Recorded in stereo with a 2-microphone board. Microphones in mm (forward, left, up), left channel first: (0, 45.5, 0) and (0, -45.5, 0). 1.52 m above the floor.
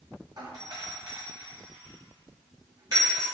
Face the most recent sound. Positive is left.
turn(degrees=-45)  # may be behind; listen again after turning